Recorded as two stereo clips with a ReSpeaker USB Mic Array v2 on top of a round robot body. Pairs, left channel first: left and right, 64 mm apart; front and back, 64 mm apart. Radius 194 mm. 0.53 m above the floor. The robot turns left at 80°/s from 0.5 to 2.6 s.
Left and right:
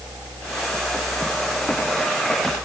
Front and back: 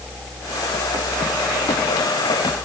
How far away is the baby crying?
No baby crying in this recording.